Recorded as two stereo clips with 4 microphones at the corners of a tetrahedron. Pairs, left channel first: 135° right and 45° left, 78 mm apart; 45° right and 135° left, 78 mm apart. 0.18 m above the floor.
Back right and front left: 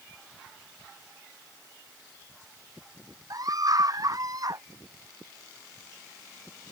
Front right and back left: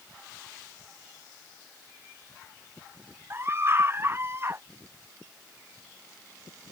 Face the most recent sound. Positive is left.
turn(degrees=80)